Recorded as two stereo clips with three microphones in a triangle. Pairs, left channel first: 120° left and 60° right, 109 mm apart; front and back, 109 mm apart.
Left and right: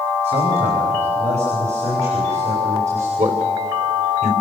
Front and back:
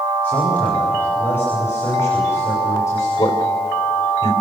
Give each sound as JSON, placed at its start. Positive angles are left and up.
{"t": 0.2, "sound": "a man speaking", "azimuth_deg": -80, "distance_m": 4.5}
{"t": 3.2, "sound": "a man speaking", "azimuth_deg": -60, "distance_m": 3.5}